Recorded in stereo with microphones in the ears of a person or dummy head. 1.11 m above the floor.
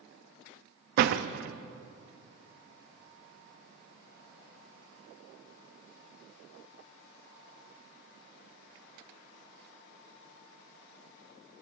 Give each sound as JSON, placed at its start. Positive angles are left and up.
{"t": 1.0, "sound": "a door slam", "side_deg": -55, "distance_m": 0.6}